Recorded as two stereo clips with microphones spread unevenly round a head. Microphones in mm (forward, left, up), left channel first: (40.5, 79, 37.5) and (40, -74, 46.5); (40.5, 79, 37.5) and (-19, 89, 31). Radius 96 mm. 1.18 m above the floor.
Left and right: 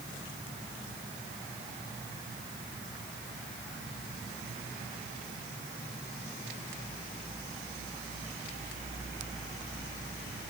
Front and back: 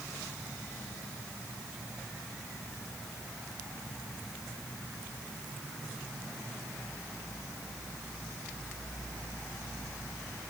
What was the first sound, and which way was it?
Only background noise.